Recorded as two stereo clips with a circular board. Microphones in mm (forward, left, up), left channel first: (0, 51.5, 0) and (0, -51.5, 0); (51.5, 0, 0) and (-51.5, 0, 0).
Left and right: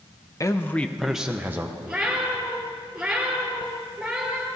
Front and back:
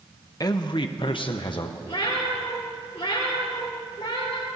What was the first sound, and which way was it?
A man speaking, 40° left.